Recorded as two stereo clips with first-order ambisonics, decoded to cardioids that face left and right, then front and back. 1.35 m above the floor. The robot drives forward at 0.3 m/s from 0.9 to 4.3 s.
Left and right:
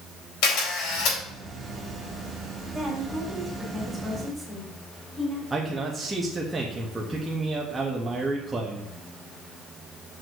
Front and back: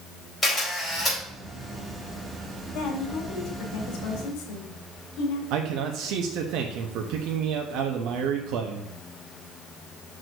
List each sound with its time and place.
0.4 s a camera shutter: 70° left, 4 m; by 1.2 s 75° left, 4 m
2.7 s a woman speaking: 5° right, 3 m
5.5 s a man speaking: 170° right, 0.8 m